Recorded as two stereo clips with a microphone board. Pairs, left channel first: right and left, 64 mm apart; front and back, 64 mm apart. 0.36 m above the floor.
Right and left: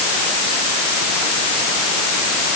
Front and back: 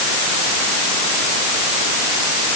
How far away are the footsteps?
No footsteps in this recording.